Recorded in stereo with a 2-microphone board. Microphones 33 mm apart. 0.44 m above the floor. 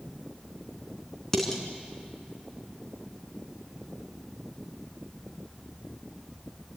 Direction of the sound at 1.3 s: 15° left (ahead or behind).